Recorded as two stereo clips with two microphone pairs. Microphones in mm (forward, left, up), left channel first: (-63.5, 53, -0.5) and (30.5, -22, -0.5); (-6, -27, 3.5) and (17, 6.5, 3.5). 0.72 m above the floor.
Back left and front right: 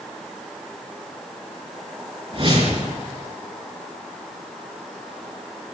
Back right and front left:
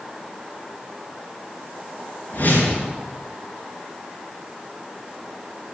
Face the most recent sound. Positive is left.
turn(degrees=-75)